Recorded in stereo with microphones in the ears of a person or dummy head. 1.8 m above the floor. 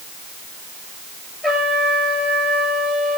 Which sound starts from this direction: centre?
A trumpet, at 1.4 s.